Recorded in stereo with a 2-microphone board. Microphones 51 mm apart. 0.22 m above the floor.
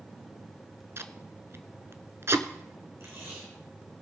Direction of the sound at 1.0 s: 50° right (ahead or behind).